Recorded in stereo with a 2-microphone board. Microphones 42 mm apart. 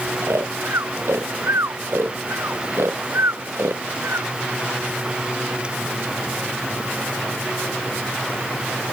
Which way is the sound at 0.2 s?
80° right.